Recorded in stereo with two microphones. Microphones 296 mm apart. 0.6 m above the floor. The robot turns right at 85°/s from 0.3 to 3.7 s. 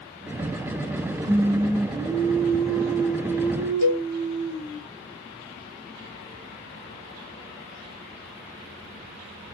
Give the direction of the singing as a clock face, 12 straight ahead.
3 o'clock.